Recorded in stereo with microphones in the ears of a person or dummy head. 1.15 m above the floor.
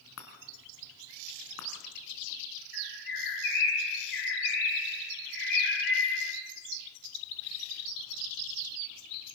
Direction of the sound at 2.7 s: 55° left (ahead or behind).